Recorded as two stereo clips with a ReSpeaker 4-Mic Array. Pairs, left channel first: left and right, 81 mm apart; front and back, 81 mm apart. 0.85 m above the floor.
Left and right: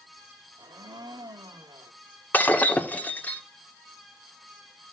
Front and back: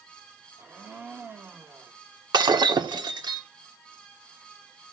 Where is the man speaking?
I don't hear a man speaking.